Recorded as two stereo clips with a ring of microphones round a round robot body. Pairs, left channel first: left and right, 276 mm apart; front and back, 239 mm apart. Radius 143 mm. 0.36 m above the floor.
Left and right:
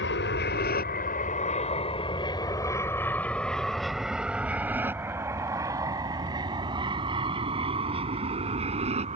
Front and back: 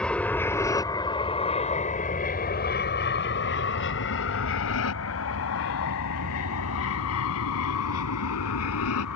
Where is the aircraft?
85° left; by 9.2 s 25° right.